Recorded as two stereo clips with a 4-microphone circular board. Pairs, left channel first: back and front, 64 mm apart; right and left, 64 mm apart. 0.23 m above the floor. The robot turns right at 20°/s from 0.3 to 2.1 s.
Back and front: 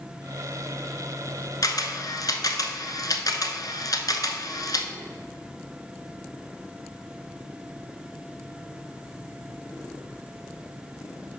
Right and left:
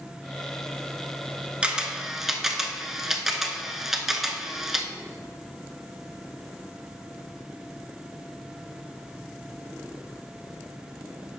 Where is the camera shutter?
165° left, 0.7 m; by 4.9 s 175° left, 0.7 m.